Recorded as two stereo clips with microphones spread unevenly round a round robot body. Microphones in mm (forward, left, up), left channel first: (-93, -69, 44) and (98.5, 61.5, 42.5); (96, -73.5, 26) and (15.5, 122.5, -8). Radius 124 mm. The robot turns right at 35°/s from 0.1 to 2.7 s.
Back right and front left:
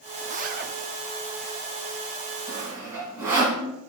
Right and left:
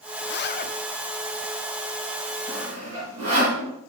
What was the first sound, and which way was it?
A zipper, 30° right.